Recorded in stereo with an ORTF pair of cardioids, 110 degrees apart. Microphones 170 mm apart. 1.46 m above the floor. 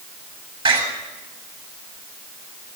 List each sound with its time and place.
0.7 s a door slam: 30° right, 7.5 m